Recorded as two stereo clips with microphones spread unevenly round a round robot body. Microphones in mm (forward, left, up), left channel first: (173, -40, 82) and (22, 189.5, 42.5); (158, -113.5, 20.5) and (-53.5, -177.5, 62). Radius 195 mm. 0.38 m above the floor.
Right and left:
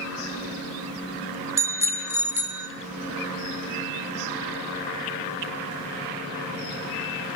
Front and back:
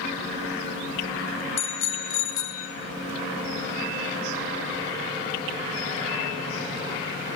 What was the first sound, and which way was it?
A bicycle bell, 45° left.